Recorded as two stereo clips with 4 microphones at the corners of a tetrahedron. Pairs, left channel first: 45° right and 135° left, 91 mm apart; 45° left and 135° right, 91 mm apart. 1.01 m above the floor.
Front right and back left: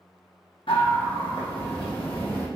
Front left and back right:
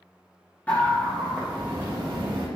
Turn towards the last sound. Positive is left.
turn(degrees=-95)